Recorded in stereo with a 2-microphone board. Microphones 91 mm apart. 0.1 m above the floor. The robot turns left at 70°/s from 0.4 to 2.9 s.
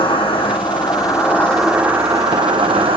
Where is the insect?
85° left, 0.8 m; by 3.0 s 90° right, 0.8 m.